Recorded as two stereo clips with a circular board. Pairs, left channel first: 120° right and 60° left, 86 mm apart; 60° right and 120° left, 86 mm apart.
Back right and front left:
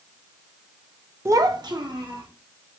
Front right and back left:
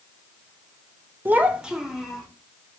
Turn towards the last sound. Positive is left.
turn(degrees=35)